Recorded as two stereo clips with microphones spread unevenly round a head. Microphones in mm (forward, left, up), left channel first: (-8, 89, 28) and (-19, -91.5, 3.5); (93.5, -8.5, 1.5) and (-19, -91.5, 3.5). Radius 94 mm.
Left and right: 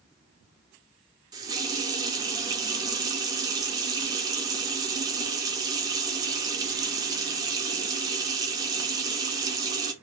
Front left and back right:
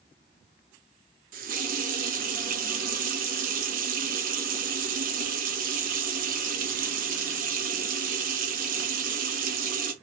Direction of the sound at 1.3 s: 165° right.